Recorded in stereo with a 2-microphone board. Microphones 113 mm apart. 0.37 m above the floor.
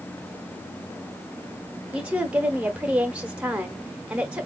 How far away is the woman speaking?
About 0.9 m.